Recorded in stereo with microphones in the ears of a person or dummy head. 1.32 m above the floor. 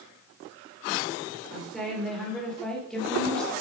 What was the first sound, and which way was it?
A woman speaking, centre (ahead or behind).